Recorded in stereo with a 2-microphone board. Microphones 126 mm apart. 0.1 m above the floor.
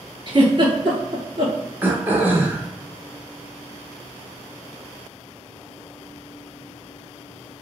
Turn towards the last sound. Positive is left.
turn(degrees=-15)  # may be behind; listen again after turning